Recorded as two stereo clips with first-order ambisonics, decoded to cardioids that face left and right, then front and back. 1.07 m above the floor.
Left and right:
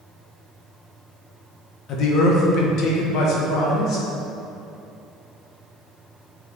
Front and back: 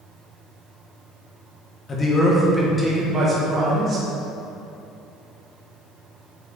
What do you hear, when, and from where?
1.9 s a man speaking: 60° left, 1.0 m; by 4.1 s 125° left, 1.5 m